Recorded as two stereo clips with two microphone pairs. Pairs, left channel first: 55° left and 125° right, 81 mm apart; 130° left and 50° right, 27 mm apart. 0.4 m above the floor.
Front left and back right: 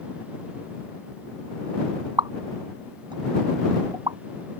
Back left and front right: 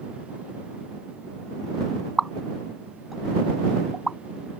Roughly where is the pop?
Behind right.